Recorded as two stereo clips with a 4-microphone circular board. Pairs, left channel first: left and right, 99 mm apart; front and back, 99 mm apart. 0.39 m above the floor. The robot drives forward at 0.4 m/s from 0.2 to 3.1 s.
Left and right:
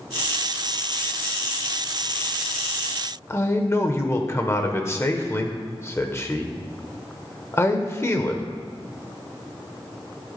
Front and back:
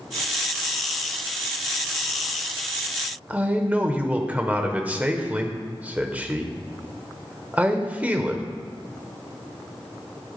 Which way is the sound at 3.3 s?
120° left.